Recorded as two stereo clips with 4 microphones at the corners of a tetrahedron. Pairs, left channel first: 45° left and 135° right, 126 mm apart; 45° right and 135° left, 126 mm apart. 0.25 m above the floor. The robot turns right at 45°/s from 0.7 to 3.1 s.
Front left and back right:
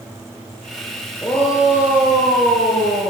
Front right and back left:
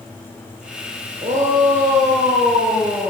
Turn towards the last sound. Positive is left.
turn(degrees=-155)